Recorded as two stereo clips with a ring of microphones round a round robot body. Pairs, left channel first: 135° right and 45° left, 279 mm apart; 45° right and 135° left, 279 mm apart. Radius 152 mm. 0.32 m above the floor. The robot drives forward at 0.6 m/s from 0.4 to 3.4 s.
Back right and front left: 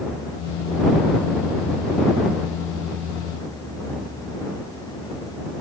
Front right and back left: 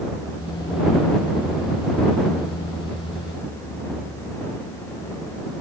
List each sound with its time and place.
Only background noise.